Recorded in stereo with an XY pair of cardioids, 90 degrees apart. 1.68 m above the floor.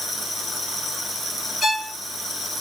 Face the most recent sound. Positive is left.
turn(degrees=25)